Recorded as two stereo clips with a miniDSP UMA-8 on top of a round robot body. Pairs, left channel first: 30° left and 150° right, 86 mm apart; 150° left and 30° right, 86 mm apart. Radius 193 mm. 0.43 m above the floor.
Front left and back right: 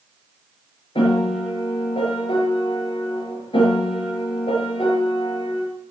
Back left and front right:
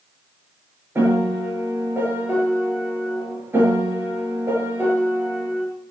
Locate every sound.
0.9 s a piano: 35° left, 6 m